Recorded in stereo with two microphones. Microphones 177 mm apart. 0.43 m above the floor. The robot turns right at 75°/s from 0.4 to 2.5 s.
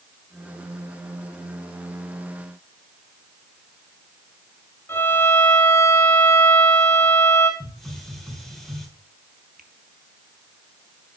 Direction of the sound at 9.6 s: 50° right (ahead or behind).